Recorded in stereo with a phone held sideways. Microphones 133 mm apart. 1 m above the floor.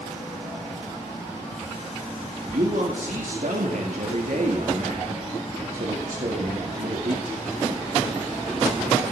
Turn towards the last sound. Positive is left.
turn(degrees=-75)  # may be behind; listen again after turning